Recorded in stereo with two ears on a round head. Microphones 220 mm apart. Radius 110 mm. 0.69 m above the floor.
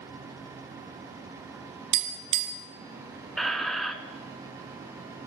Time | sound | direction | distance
1.9 | tapping | 75° right (ahead or behind) | 1.7 m
3.4 | a squeak | centre (ahead or behind) | 0.7 m